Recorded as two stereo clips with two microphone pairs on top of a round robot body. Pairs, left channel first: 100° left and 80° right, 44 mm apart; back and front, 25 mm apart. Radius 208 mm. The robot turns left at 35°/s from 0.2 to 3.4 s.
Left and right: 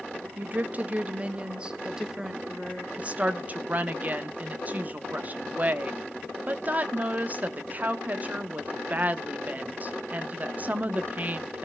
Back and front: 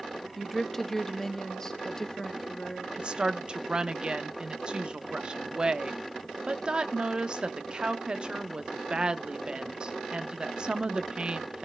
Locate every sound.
0.4 s a woman speaking: 105° right, 1.4 m; by 2.9 s 170° left, 1.4 m
3.0 s a woman speaking: 20° right, 1.1 m; by 11.6 s 35° right, 1.1 m